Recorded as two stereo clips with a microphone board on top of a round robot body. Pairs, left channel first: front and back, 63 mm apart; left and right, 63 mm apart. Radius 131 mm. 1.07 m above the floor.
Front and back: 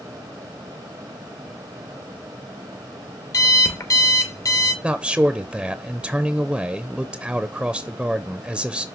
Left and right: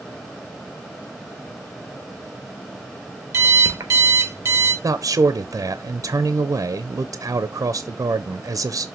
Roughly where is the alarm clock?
Ahead right.